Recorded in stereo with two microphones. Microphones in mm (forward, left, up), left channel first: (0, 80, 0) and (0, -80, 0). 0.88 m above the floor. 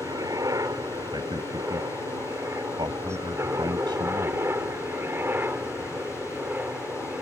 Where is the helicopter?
20° right (ahead or behind); by 7.2 s 10° right (ahead or behind).